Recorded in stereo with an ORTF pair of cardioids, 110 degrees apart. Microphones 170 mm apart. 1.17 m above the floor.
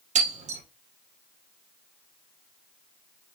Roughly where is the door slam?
No door slam in this recording.